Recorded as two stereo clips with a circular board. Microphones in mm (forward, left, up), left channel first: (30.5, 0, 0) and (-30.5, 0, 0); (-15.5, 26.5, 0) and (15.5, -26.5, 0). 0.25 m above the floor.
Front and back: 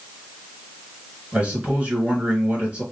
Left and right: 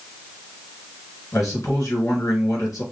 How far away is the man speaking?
About 3.5 m.